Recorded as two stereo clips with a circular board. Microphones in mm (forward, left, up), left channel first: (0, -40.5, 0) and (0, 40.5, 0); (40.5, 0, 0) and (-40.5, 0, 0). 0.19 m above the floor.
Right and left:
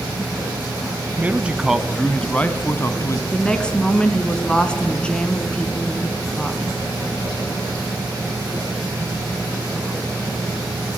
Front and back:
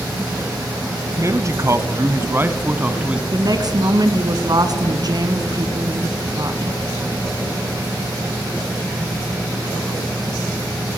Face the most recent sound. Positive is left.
turn(degrees=-165)